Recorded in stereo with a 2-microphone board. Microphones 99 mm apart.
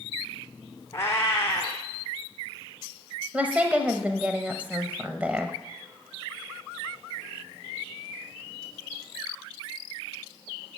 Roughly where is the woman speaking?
Centre.